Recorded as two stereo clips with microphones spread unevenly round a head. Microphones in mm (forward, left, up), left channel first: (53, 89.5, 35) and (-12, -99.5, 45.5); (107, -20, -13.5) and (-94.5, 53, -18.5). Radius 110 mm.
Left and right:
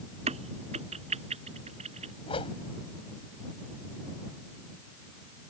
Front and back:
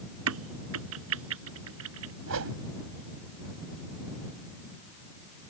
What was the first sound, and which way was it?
A crack, 170° right.